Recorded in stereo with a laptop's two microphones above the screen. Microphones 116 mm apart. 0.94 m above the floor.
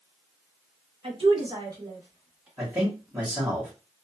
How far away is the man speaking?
About 1.7 m.